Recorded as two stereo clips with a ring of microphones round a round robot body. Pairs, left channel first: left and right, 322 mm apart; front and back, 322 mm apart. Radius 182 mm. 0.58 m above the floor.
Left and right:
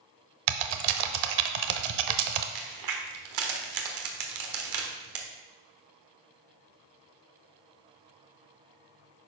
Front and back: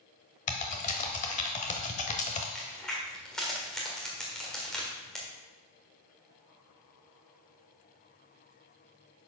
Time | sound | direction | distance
0.5 | typing on a keyboard | 70° right | 0.7 m
2.5 | a crack | 90° right | 1.5 m